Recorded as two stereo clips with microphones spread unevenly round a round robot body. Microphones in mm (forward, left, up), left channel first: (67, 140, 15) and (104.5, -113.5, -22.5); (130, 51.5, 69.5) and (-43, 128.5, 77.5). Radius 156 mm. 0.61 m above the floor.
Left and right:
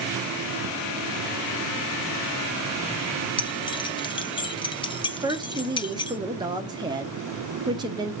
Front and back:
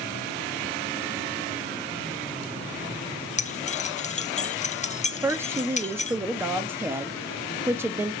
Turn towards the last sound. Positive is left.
turn(degrees=-130)